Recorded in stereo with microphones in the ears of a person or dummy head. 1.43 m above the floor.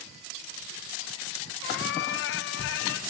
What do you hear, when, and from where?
1.6 s a cat meowing: 65° left (ahead or behind), 1.5 m